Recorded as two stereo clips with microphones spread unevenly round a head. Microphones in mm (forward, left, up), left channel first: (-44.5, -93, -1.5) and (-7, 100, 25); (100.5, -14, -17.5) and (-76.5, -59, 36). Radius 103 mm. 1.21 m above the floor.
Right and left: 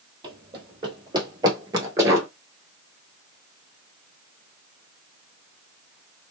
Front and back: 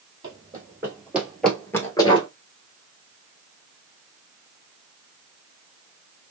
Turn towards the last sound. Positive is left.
turn(degrees=70)